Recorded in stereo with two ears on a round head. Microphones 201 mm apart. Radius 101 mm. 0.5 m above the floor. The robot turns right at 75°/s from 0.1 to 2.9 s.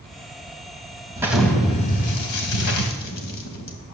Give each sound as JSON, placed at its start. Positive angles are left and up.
{"t": 1.2, "sound": "an explosion", "azimuth_deg": -15, "distance_m": 1.7}